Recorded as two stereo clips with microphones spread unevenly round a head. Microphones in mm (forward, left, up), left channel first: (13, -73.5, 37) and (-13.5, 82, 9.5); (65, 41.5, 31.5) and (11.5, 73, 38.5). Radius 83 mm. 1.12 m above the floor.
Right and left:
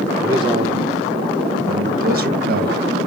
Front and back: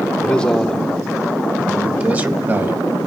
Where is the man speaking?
35° left, 1.1 m; by 2.8 s 100° left, 1.8 m.